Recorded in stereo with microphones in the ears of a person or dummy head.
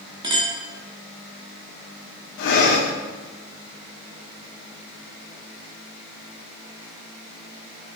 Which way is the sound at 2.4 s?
60° left (ahead or behind).